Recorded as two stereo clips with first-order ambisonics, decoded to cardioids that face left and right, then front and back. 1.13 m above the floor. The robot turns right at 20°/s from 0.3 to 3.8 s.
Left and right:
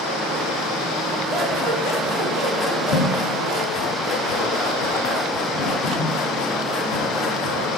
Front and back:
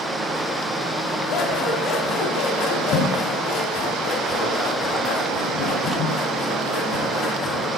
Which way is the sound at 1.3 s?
5° left.